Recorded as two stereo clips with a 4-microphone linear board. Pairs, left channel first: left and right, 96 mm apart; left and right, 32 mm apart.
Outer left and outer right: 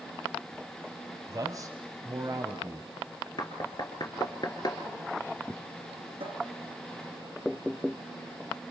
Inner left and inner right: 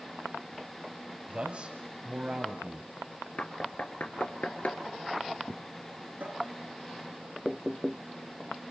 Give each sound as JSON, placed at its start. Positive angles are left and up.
{"t": 1.3, "sound": "a man speaking", "side_deg": -40, "distance_m": 1.5}
{"t": 3.4, "sound": "knocking", "side_deg": 45, "distance_m": 3.0}
{"t": 6.2, "sound": "a cupboard door", "side_deg": -65, "distance_m": 4.0}